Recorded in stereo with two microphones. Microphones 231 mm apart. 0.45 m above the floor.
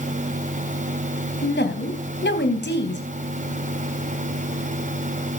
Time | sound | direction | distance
1.4 | a woman speaking | 50° left (ahead or behind) | 3.5 m